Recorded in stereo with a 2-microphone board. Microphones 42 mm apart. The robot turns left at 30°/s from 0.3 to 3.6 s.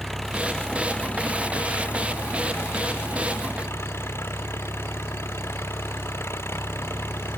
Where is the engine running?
170° left; by 7.4 s 75° left.